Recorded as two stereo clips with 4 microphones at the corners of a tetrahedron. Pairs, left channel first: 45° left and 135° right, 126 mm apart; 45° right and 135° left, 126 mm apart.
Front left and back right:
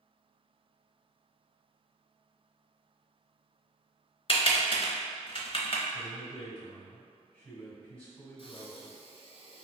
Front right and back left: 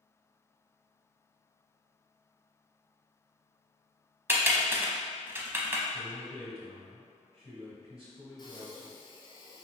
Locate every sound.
4.3 s typing on a keyboard: 70° left, 0.7 m
5.9 s a man speaking: 120° left, 1.9 m
8.4 s breathing: 5° left, 0.6 m